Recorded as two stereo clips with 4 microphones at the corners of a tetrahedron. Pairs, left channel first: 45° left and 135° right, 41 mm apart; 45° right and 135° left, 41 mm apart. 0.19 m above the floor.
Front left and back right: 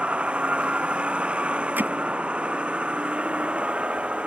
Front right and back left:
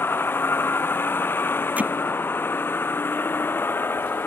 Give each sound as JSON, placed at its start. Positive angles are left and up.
{"t": 0.0, "sound": "a vehicle", "azimuth_deg": -75}
{"t": 1.8, "sound": "hammering", "azimuth_deg": -175}